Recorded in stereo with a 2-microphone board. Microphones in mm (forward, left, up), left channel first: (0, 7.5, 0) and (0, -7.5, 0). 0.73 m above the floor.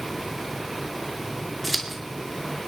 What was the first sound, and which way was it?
Scissors, centre (ahead or behind).